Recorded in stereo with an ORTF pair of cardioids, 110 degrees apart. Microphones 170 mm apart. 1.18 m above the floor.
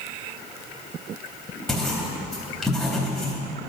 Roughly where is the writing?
Ahead.